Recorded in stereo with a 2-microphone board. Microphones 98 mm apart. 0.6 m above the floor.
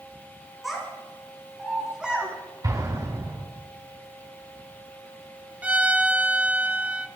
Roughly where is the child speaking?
Centre.